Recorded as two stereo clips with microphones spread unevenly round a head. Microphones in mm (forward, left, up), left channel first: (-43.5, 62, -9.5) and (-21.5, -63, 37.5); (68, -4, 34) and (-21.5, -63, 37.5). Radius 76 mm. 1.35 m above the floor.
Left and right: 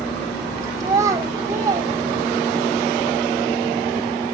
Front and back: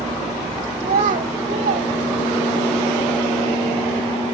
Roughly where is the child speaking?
Behind right.